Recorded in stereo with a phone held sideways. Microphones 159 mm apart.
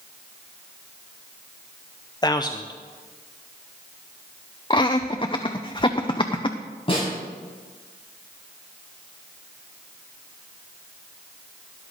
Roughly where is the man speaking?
Left.